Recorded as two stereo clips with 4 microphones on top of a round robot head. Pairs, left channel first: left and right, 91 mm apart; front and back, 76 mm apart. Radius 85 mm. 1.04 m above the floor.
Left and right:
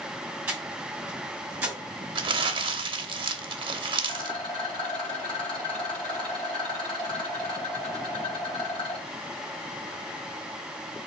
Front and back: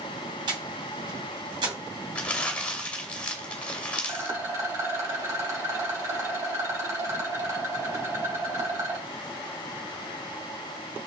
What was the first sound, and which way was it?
Breathing, 170° right.